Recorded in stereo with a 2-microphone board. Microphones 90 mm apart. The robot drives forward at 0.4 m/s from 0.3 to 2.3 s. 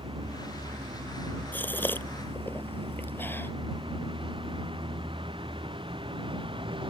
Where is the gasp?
20° left (ahead or behind); by 3.5 s 25° left (ahead or behind).